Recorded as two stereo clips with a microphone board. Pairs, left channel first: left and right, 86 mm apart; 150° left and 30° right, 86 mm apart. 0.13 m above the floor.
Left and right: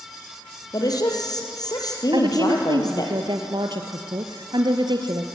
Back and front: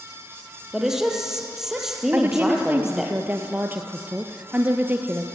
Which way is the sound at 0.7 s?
55° left.